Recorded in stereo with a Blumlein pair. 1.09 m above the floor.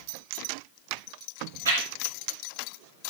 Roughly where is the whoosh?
Ahead right.